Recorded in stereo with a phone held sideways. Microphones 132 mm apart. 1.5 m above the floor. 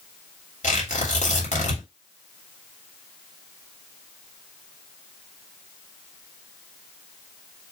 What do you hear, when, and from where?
0.6 s tearing paper: 65° left (ahead or behind), 2.5 m